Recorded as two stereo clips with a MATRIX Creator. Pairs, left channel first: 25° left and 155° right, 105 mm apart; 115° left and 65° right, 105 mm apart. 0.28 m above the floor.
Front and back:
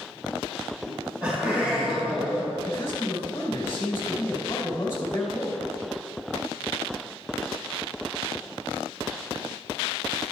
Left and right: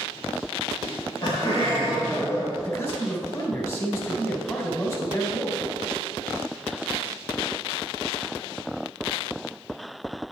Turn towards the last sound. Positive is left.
turn(degrees=70)